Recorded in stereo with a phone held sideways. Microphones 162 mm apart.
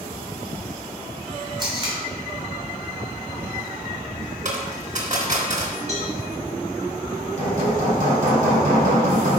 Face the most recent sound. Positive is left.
turn(degrees=-55)  # may be behind; listen again after turning